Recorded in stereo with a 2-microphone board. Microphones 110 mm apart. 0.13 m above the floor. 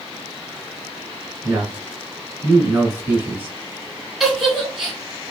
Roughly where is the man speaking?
Centre.